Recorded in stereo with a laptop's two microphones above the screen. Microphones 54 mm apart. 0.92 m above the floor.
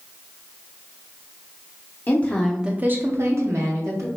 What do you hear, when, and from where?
2.1 s a woman speaking: 35° left (ahead or behind), 0.7 m; by 4.1 s 70° right (ahead or behind), 1.5 m